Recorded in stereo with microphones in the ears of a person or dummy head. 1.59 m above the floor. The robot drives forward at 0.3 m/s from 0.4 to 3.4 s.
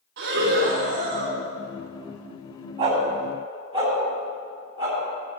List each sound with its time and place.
0.2 s breathing: 45° right (ahead or behind), 2.5 m
2.8 s a dog barking: 20° right (ahead or behind), 3.5 m